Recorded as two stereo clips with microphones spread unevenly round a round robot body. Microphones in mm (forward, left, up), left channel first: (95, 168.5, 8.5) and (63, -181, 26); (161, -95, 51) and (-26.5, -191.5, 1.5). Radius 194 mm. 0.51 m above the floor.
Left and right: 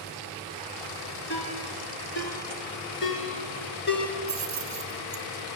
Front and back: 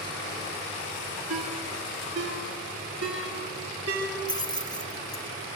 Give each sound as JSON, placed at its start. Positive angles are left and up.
{"t": 1.3, "sound": "a ringtone", "azimuth_deg": 150, "distance_m": 3.0}
{"t": 4.3, "sound": "keys jangling", "azimuth_deg": -50, "distance_m": 3.0}